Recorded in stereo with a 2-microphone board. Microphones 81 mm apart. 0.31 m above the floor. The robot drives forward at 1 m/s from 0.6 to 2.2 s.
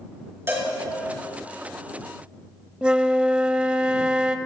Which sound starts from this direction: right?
A cowbell, at 0.5 s.